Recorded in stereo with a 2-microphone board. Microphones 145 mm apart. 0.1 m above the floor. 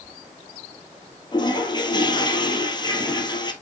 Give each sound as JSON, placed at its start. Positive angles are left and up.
{"t": 1.3, "sound": "a toilet flushing", "side_deg": 30, "distance_m": 1.6}